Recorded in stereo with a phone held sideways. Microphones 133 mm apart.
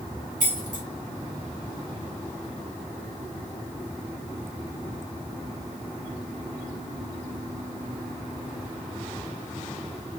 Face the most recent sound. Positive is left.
turn(degrees=-70)  # may be behind; listen again after turning